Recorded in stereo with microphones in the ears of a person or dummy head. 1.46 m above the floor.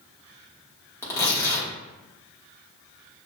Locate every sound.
1.0 s tearing paper: 20° left (ahead or behind), 1.4 m